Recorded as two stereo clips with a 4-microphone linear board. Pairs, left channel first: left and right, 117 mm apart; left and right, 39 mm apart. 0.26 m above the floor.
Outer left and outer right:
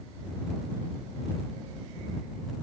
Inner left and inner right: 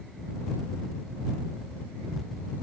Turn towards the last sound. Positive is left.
No sound to turn to.